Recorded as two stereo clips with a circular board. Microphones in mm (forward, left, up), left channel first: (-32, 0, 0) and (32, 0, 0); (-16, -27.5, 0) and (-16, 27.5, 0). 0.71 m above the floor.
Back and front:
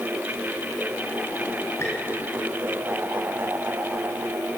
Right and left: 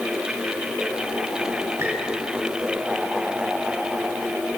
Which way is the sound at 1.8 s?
135° left.